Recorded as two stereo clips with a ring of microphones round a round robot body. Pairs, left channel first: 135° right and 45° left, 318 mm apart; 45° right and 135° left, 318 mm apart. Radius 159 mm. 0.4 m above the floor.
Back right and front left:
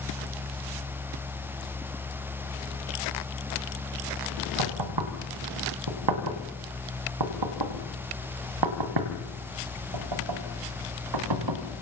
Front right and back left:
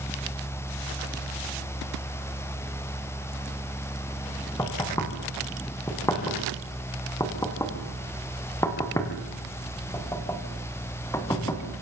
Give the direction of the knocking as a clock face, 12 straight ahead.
11 o'clock.